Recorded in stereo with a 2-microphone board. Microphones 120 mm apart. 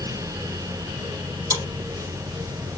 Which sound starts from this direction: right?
Chewing, at 1.5 s.